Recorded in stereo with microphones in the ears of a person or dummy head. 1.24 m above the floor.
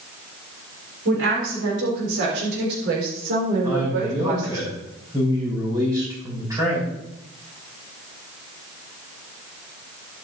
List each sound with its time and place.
1.1 s a woman speaking: 80° right, 4.5 m; by 4.6 s 45° right (ahead or behind), 5 m
3.6 s a man speaking: 20° right (ahead or behind), 6 m